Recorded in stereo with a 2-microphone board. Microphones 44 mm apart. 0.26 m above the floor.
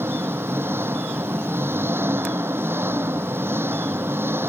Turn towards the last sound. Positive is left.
turn(degrees=-65)  # may be behind; listen again after turning